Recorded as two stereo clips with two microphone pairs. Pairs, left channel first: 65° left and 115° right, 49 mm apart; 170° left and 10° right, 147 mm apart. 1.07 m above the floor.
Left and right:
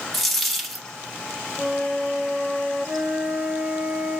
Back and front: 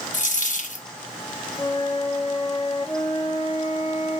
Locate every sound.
0.1 s a dropped coin: 155° left, 0.7 m
1.6 s a flute: 155° right, 1.0 m